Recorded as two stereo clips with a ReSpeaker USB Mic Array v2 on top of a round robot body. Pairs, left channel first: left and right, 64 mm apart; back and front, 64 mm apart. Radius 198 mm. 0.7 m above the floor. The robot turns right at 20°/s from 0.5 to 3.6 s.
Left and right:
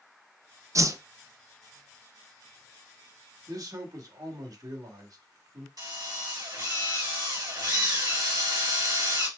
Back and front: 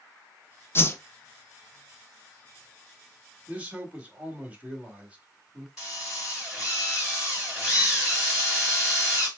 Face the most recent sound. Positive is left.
turn(degrees=-85)